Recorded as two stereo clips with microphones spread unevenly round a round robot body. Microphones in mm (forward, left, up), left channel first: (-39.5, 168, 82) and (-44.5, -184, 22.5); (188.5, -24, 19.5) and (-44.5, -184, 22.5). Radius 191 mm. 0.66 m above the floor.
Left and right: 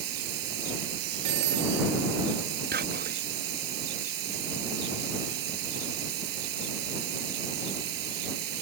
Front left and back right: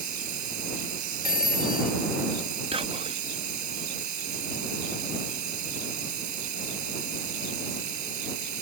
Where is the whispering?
85° right.